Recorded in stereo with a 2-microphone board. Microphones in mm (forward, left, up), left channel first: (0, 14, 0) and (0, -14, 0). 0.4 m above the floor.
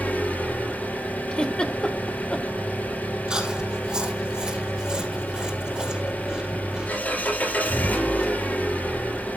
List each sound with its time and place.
0.0 s an engine running: 80° left, 5.5 m
1.3 s a giggle: 35° left (ahead or behind), 1.5 m
3.3 s chewing: 30° right (ahead or behind), 4 m